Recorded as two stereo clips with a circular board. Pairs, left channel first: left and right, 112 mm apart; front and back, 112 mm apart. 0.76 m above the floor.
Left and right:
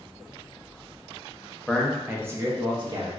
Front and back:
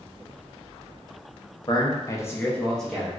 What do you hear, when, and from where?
1.7 s a man speaking: 10° left, 0.6 m; by 3.2 s 95° right, 0.7 m